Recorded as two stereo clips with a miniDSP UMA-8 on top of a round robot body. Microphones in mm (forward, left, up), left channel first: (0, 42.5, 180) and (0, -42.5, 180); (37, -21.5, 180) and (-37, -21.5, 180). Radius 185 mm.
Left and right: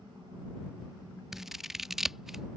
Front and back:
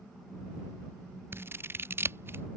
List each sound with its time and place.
1.3 s scissors: 170° right